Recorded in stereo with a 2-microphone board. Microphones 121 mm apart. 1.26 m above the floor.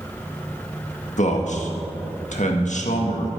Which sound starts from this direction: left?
A man speaking, at 1.2 s.